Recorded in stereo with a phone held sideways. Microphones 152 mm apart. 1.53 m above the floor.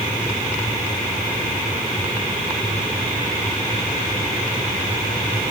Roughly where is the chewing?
No chewing in this recording.